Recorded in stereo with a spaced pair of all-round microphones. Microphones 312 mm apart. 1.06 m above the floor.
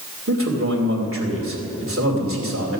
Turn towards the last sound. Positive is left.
turn(degrees=-45)  # may be behind; listen again after turning